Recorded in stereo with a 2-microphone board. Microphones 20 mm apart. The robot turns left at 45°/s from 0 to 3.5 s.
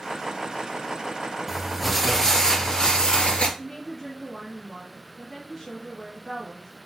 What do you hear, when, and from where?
1.5 s crumpling: 170° right, 1.8 m; by 3.5 s 100° left, 1.8 m
3.6 s a woman speaking: 5° left (ahead or behind), 2 m